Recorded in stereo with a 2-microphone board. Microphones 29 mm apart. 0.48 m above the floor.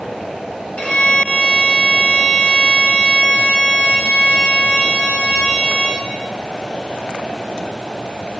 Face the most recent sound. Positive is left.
turn(degrees=40)  # may be behind; listen again after turning